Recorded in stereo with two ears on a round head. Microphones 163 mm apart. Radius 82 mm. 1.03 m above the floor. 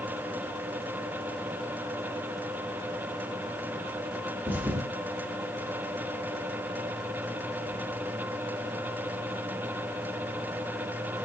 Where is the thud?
10° right (ahead or behind), 0.8 m.